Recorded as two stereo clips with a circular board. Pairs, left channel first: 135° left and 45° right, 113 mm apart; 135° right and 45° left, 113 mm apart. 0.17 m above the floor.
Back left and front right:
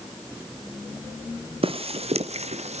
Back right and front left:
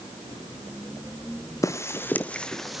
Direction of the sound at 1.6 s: 75° right.